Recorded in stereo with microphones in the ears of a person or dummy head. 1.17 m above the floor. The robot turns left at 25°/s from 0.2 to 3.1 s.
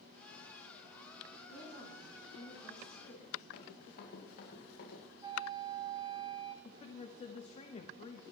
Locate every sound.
1.5 s a woman speaking: 130° right, 8 m; by 3.4 s 170° right, 8 m
3.5 s running footsteps: 50° left (ahead or behind), 5 m; by 5.0 s 40° left (ahead or behind), 5.5 m
5.2 s a flute: 20° right (ahead or behind), 1.3 m
6.7 s a woman speaking: 30° left (ahead or behind), 0.9 m